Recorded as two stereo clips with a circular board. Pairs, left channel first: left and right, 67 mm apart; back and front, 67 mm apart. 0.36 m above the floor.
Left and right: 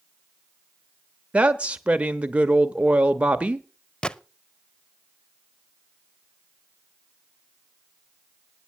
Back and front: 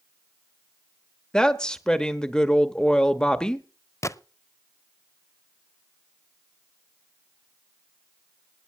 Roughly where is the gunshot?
Behind.